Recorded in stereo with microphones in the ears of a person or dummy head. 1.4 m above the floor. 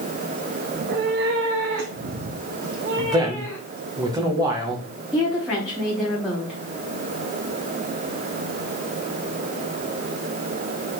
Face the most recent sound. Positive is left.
turn(degrees=0)  # may be behind; listen again after turning